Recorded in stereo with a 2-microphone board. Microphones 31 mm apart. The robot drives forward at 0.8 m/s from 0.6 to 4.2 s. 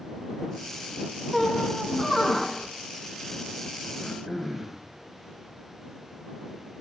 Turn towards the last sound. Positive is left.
turn(degrees=-10)  # may be behind; listen again after turning